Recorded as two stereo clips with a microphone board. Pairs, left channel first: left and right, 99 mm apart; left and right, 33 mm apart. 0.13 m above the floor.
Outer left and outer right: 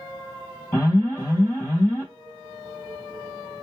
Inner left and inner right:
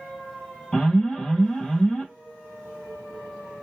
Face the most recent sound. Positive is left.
turn(degrees=15)  # may be behind; listen again after turning